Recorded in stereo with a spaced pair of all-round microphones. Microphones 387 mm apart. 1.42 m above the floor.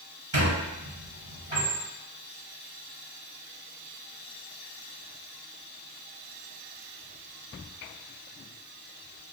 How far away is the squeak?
About 1.8 m.